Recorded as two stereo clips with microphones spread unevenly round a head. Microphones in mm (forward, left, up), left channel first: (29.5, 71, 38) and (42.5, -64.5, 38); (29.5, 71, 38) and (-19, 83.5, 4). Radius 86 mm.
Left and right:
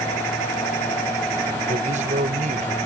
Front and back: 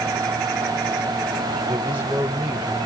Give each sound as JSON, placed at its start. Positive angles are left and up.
{"t": 1.7, "sound": "a man speaking", "azimuth_deg": -135}